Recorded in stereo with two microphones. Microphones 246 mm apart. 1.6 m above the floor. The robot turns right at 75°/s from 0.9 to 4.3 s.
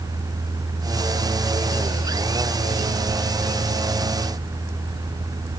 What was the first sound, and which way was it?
Only background noise.